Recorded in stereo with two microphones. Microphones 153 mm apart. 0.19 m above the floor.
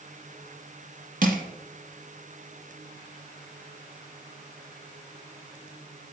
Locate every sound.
1.2 s crushing: 65° right (ahead or behind), 0.9 m